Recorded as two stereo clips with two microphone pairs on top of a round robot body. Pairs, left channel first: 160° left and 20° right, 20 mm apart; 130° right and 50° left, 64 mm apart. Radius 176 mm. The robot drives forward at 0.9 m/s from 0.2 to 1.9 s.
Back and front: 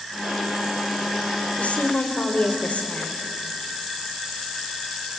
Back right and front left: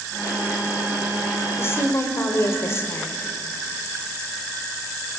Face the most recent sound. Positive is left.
turn(degrees=175)